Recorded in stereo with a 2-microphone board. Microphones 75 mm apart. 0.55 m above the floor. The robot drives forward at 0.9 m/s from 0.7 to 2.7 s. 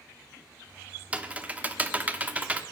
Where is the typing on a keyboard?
20° right (ahead or behind), 1.2 m.